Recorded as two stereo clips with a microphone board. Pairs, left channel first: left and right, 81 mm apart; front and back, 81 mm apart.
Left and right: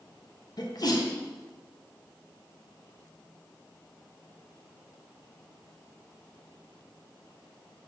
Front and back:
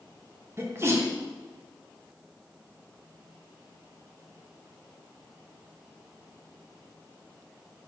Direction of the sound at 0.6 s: 125° left.